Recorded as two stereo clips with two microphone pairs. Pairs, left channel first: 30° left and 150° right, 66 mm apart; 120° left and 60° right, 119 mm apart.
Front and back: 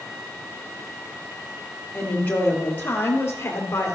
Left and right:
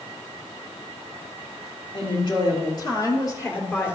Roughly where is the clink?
I don't hear a clink.